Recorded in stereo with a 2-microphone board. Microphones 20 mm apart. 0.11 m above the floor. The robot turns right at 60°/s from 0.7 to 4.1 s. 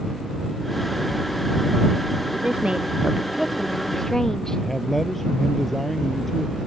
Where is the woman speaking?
80° right; by 4.6 s 20° left.